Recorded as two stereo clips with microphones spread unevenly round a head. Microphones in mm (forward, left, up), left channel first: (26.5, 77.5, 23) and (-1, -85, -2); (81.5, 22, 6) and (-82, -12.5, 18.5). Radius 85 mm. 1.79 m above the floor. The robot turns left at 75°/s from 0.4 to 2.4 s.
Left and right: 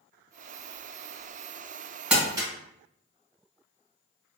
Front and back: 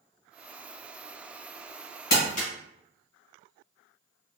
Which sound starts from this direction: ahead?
Crumpling, at 2.1 s.